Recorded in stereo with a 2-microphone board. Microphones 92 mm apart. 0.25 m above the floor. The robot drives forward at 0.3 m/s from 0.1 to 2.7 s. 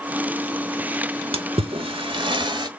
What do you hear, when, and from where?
1.3 s a splash: 90° right, 0.6 m; by 2.7 s 55° right (ahead or behind), 0.7 m